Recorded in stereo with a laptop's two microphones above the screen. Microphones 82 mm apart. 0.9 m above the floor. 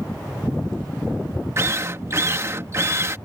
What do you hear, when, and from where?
1.6 s a drill: 35° right (ahead or behind)